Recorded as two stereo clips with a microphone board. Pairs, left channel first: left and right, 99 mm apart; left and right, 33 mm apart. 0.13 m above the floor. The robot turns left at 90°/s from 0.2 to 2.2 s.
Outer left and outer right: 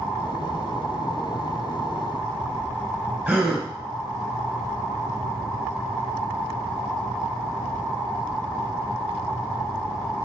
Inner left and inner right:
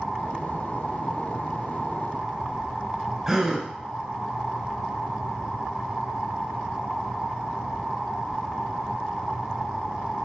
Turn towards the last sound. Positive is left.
turn(degrees=-15)  # may be behind; listen again after turning